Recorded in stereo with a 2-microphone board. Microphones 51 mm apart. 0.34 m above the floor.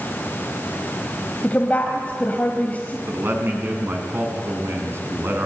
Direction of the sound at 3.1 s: 45° right (ahead or behind).